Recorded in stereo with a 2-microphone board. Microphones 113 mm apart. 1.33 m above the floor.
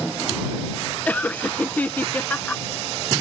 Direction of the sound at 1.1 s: 15° left (ahead or behind).